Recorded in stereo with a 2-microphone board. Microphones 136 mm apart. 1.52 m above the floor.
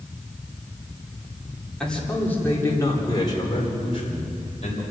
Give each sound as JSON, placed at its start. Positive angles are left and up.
{"t": 1.8, "sound": "a man speaking", "side_deg": 5, "distance_m": 4.0}